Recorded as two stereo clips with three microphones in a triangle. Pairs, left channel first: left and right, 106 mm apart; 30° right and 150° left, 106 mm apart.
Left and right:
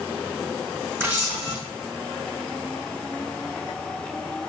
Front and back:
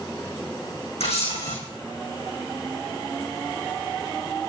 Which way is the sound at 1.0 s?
25° right.